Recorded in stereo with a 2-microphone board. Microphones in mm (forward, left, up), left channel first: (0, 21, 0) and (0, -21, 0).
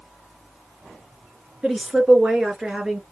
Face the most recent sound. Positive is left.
turn(degrees=-15)  # may be behind; listen again after turning